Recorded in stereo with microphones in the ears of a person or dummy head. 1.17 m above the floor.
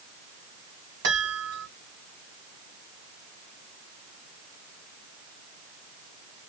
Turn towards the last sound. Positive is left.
turn(degrees=-60)  # may be behind; listen again after turning